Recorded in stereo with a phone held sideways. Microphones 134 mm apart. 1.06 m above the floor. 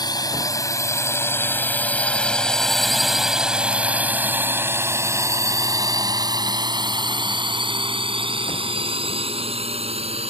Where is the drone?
30° left (ahead or behind); by 10.3 s 50° right (ahead or behind).